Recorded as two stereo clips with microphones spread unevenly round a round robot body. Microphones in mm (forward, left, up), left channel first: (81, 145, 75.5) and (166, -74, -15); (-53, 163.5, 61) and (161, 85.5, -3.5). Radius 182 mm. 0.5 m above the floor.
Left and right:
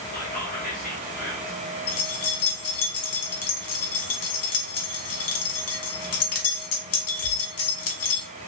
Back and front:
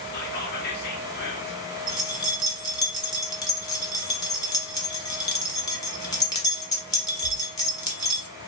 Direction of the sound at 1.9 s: 75° left.